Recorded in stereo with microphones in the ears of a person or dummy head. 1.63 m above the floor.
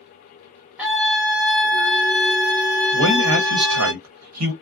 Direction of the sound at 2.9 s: 75° right (ahead or behind).